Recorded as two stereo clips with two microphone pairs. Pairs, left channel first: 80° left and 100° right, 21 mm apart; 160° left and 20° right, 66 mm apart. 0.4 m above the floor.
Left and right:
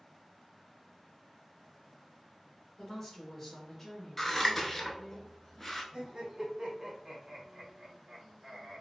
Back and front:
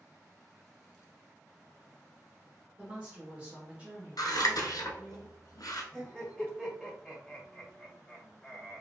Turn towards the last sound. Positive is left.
turn(degrees=-110)